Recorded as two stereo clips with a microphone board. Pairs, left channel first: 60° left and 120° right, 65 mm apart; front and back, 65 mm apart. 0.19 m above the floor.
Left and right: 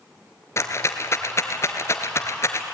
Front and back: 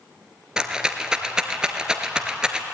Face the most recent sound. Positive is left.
turn(degrees=105)